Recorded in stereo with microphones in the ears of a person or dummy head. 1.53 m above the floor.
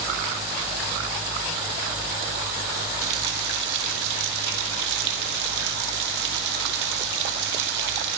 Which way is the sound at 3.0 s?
65° right (ahead or behind).